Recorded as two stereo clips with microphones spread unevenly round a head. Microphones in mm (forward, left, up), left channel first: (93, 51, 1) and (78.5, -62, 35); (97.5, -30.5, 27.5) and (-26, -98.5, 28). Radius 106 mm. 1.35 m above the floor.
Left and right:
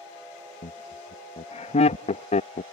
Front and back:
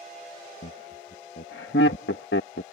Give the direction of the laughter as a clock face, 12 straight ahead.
10 o'clock.